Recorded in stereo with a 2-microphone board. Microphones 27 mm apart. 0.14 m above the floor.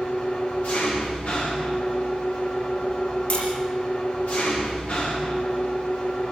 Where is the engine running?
70° left (ahead or behind), 7.5 m.